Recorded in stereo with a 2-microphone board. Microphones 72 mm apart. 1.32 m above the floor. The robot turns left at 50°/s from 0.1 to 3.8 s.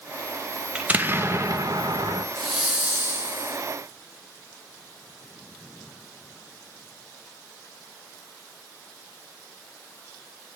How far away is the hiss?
About 2.5 m.